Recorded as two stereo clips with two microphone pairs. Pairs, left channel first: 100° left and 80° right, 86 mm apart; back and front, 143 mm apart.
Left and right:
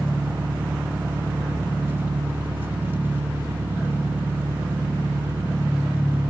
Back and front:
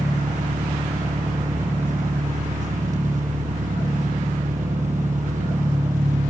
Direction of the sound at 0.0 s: 15° right.